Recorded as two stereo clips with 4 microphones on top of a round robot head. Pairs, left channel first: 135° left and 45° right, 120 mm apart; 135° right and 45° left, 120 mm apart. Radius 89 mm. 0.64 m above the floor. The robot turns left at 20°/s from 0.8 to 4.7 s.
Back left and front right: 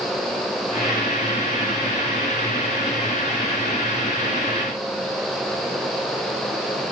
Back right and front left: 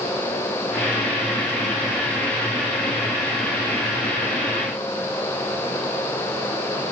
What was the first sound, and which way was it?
Only background noise.